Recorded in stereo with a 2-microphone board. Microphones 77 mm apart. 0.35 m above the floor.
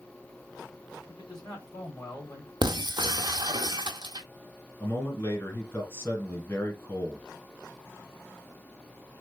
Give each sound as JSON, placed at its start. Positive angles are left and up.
{"t": 1.1, "sound": "a man speaking", "side_deg": 60, "distance_m": 2.5}
{"t": 2.6, "sound": "breaking glass", "side_deg": -60, "distance_m": 0.6}
{"t": 4.8, "sound": "a man speaking", "side_deg": 30, "distance_m": 2.0}